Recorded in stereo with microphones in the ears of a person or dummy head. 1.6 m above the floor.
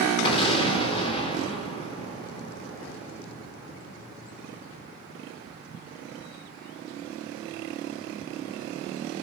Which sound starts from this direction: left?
An explosion, at 0.2 s.